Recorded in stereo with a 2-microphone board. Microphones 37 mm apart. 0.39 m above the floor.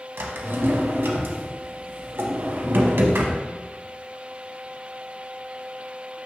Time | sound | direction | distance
0.2 | a drawer | 85° right | 0.6 m